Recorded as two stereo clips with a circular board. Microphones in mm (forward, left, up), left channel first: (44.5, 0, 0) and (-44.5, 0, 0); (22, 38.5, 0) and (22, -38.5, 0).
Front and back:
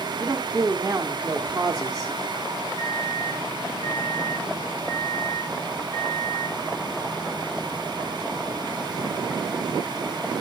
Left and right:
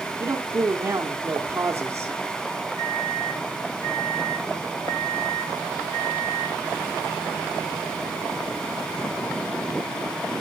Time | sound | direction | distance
0.2 | a man speaking | 125° right | 1.1 m
2.8 | a microwave | 40° left | 4.5 m